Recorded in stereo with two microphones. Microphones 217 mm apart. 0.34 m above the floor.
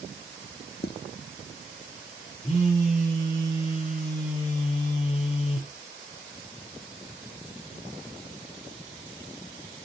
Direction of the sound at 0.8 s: 50° left (ahead or behind).